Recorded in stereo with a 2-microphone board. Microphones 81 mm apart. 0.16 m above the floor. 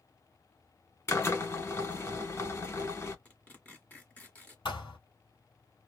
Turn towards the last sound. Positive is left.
turn(degrees=75)  # may be behind; listen again after turning